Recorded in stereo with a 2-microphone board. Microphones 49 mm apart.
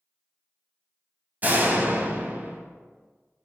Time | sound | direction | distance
1.4 | a door slam | 35° right (ahead or behind) | 1.2 m